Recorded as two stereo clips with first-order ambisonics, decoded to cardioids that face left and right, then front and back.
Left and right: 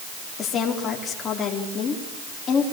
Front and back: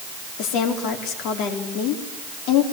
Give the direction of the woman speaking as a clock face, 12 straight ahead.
11 o'clock.